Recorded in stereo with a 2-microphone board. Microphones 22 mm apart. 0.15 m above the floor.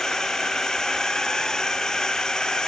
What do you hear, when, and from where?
0.0 s a drone: 30° left (ahead or behind); by 2.7 s 35° left (ahead or behind)